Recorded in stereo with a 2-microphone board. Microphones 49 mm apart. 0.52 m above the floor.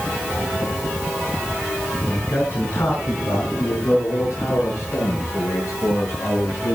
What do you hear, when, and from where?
2.0 s a man speaking: 50° left (ahead or behind), 5 m; by 6.8 s 80° left, 9 m